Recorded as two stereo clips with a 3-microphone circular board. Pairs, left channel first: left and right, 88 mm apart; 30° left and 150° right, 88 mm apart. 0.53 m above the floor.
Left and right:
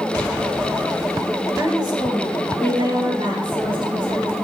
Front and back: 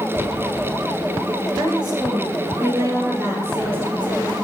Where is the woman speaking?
130° right, 2.5 m; by 4.3 s 80° right, 5 m.